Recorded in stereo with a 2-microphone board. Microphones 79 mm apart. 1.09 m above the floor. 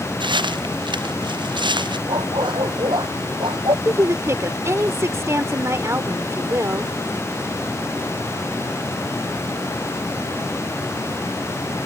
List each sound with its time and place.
0.2 s footsteps: 80° right
2.1 s a dog barking: 90° right
3.9 s a woman speaking: 40° right (ahead or behind)